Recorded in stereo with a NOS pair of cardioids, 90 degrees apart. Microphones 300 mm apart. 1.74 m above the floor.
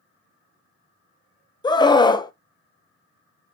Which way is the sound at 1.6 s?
15° left.